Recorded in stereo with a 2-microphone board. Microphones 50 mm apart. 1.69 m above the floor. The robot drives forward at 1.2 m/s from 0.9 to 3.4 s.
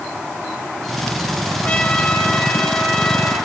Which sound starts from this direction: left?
A trumpet, at 1.6 s.